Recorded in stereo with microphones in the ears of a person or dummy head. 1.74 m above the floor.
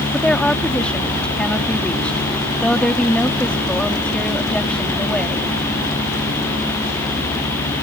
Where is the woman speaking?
10° left (ahead or behind).